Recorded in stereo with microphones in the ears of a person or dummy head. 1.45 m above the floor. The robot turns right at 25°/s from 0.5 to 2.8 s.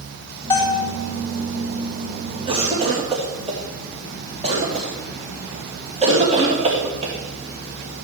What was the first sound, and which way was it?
A bell, 10° left (ahead or behind).